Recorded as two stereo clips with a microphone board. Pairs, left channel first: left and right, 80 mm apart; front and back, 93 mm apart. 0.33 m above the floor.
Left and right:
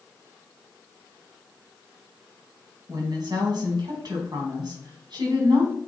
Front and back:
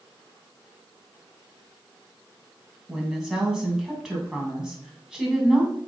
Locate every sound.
2.9 s a woman speaking: 100° right, 3 m